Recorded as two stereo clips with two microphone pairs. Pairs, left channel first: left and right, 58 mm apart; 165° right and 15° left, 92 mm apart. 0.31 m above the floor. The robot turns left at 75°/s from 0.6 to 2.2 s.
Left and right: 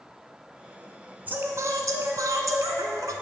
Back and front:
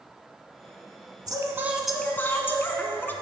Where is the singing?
30° right, 0.7 m; by 3.1 s 100° right, 0.7 m.